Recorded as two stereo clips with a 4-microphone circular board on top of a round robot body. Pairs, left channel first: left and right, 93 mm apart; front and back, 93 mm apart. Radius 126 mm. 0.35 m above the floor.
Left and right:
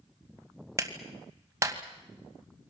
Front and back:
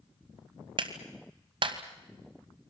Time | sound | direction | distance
0.8 | a clap | 150° right | 2.5 m